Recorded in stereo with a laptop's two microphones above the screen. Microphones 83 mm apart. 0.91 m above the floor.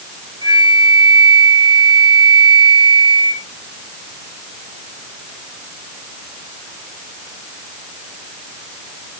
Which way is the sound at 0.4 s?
80° right.